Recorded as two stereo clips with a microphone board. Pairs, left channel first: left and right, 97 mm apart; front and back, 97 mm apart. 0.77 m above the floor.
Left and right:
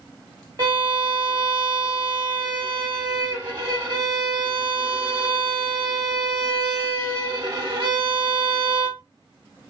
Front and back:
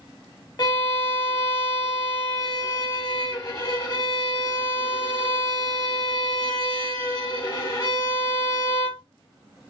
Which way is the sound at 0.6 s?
50° right.